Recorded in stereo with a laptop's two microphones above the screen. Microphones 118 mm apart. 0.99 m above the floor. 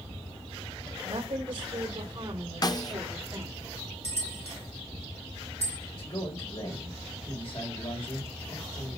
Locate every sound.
1.0 s a woman speaking: 55° right (ahead or behind), 4 m; by 3.5 s 25° right (ahead or behind), 2.5 m
2.6 s a snare drum: 35° left (ahead or behind), 0.6 m
4.0 s a bell: 70° left (ahead or behind), 4 m
5.9 s a man speaking: 65° left (ahead or behind), 3.5 m